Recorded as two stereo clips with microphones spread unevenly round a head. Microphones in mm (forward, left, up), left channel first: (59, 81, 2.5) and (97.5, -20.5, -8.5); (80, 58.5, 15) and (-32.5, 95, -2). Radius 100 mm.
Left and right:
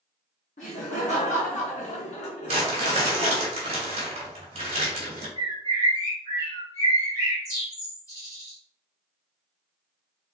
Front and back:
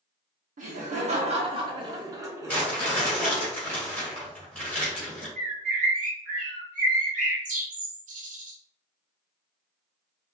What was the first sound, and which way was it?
Laughter, 155° left.